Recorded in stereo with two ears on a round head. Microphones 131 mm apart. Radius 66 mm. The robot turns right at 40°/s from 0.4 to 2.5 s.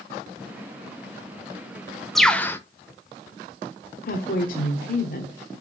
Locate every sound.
2.1 s a bird: centre (ahead or behind), 0.8 m; by 2.6 s 15° left (ahead or behind), 0.8 m
4.1 s a woman speaking: 65° left (ahead or behind), 1.3 m